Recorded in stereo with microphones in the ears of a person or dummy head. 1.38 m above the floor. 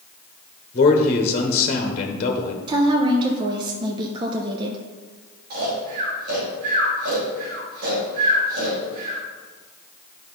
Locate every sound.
0.7 s a man speaking: 35° left (ahead or behind), 1.1 m
2.7 s a woman speaking: 30° right (ahead or behind), 0.7 m
5.5 s snoring: 55° right (ahead or behind), 2.5 m